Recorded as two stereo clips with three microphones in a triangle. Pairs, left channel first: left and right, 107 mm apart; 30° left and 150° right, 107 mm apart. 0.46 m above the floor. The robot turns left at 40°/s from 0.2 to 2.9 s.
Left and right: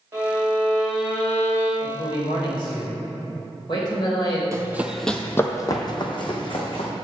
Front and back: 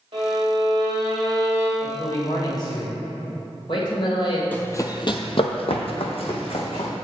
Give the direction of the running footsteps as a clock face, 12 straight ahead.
1 o'clock.